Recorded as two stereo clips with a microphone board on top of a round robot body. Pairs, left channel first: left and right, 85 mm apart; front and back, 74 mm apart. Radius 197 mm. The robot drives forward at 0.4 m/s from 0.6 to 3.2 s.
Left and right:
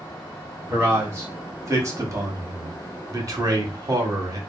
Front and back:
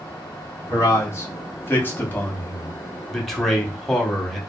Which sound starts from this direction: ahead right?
A man speaking, at 0.7 s.